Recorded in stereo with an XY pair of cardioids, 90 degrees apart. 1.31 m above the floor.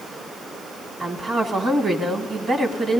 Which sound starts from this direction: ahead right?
A woman speaking, at 1.0 s.